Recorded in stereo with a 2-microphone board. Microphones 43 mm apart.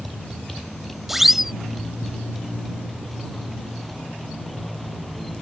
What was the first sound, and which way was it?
A motorcycle, 5° left (ahead or behind).